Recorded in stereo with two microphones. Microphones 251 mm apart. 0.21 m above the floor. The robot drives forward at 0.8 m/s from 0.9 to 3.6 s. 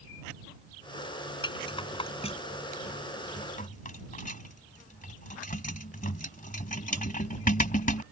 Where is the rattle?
20° left (ahead or behind); by 8.0 s 30° left (ahead or behind).